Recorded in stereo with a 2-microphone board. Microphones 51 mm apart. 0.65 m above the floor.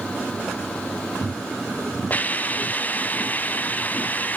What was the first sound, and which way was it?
A hiss, 30° left (ahead or behind).